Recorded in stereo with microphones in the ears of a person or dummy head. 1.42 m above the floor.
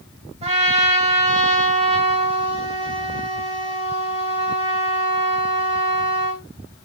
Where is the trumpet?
35° right (ahead or behind), 2.5 m.